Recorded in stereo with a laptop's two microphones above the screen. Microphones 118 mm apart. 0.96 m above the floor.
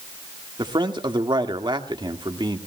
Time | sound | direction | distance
0.6 | a man speaking | 40° right (ahead or behind) | 1.8 m